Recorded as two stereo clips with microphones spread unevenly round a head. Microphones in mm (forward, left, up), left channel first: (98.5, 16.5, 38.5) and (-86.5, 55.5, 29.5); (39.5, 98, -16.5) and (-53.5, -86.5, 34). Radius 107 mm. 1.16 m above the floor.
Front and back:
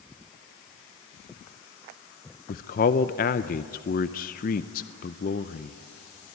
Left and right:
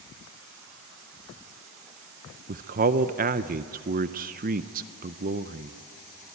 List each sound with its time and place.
2.5 s a man speaking: 65° right, 0.5 m